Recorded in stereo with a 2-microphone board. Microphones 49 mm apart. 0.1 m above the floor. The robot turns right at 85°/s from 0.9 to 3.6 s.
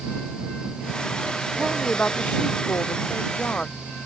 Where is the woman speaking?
15° right; by 3.8 s 160° left.